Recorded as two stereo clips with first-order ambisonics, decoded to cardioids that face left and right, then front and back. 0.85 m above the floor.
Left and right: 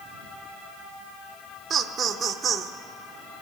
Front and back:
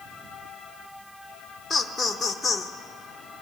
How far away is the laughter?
About 0.6 m.